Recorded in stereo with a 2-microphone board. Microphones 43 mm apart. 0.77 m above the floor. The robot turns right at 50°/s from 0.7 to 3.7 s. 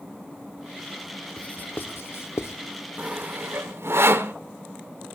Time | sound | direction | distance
1.4 | writing | 30° left (ahead or behind) | 0.7 m
3.0 | sawing | 35° right (ahead or behind) | 1.0 m